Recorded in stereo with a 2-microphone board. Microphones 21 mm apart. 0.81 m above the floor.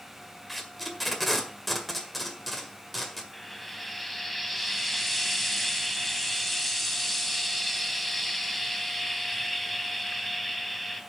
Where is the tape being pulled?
Centre (ahead or behind), 1.7 m.